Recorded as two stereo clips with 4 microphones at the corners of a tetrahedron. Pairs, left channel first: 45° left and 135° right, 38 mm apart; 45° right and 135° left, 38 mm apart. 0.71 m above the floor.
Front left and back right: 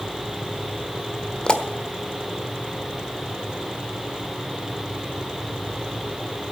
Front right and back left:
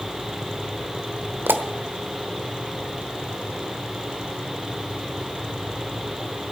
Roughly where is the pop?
Behind left.